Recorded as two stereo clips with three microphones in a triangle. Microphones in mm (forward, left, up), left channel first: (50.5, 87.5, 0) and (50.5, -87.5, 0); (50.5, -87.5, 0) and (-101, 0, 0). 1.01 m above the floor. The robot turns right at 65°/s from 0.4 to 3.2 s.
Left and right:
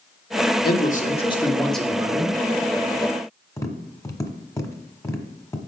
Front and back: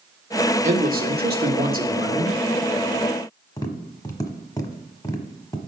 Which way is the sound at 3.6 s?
25° left.